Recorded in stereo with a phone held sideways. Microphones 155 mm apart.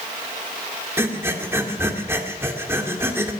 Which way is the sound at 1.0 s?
15° right (ahead or behind).